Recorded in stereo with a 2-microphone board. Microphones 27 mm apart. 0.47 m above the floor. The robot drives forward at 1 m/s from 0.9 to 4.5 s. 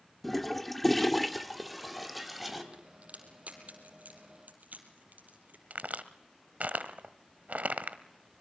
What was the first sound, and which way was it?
A toilet flushing, 10° left (ahead or behind).